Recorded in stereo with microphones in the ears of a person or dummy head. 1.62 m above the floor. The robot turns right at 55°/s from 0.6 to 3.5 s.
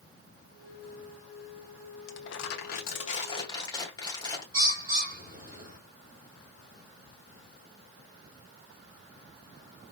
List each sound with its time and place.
2.1 s crumpling: 80° left, 1.1 m; by 4.4 s 160° left, 1.1 m
4.5 s a bird: 15° right (ahead or behind), 2 m